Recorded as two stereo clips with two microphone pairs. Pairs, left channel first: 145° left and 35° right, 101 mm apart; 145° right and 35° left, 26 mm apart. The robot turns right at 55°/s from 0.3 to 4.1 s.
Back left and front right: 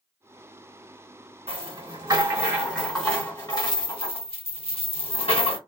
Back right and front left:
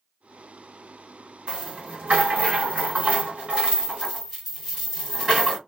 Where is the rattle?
20° right, 2 m; by 5.6 s 120° left, 2 m.